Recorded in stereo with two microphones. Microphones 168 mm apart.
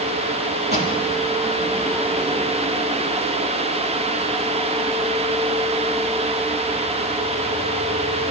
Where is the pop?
75° right (ahead or behind), 5.5 m.